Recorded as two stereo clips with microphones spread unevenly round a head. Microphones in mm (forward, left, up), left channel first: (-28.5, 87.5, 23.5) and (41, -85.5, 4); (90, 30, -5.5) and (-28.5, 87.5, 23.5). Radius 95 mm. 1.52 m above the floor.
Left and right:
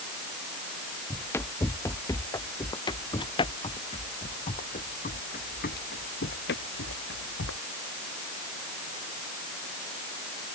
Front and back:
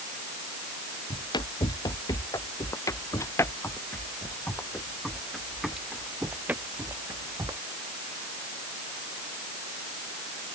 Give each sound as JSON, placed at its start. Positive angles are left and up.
{"t": 1.1, "sound": "running footsteps", "azimuth_deg": 35}